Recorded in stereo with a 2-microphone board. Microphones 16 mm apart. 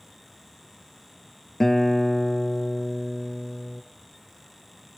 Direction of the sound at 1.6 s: 30° left (ahead or behind).